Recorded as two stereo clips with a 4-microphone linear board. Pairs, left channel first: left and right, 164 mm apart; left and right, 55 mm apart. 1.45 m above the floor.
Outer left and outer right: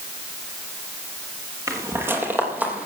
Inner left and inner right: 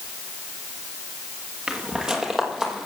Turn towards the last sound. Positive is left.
turn(degrees=-10)  # may be behind; listen again after turning